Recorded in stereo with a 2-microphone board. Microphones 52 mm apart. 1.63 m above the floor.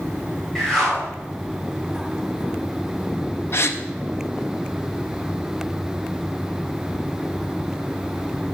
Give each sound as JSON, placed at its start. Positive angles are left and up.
{"t": 0.6, "sound": "a whoosh", "side_deg": 10, "distance_m": 2.5}
{"t": 3.5, "sound": "a gasp", "side_deg": 50, "distance_m": 0.7}